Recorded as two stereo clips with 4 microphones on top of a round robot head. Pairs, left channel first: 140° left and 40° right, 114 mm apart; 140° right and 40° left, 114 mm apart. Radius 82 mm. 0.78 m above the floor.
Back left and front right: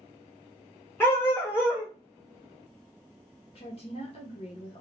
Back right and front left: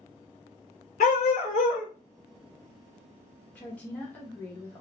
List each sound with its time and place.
1.0 s a dog barking: 150° right, 1.1 m
3.5 s a woman speaking: 150° left, 0.9 m